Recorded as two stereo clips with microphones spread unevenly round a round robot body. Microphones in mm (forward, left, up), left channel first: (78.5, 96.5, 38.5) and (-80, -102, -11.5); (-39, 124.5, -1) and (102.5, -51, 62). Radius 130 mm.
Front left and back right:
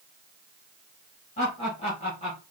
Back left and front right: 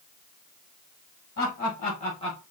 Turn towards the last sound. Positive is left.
turn(degrees=120)